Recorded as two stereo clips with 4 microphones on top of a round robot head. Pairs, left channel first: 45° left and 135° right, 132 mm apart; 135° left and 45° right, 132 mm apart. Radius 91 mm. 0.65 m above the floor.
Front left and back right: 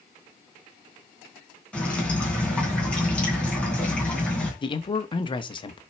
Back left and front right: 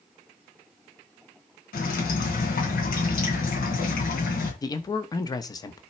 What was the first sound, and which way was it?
Dripping, 125° left.